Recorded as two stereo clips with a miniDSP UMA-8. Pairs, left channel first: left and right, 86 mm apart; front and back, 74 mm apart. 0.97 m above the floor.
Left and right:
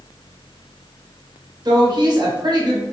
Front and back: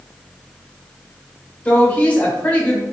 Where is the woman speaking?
70° right, 1.1 m.